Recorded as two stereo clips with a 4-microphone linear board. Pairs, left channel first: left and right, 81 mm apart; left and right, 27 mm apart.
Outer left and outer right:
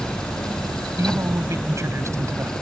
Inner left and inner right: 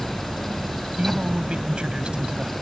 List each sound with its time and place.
1.0 s a man speaking: 35° right (ahead or behind)